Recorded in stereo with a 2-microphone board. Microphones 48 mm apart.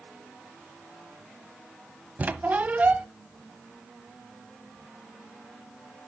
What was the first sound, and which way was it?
A squeak, 30° right (ahead or behind).